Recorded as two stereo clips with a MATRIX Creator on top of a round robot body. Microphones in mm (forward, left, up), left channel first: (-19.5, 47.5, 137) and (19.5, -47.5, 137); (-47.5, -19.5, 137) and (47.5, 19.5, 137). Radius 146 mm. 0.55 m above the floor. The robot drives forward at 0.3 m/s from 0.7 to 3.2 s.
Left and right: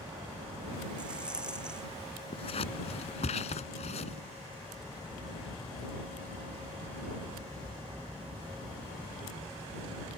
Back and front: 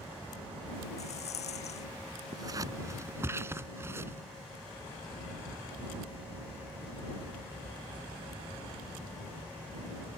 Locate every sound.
1.0 s a rattle: 150° right
2.3 s scissors: 75° left; by 4.2 s 90° left